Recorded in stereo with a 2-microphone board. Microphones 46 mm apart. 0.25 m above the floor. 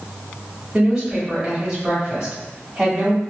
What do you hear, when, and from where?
0.7 s a woman speaking: 10° right (ahead or behind), 1.6 m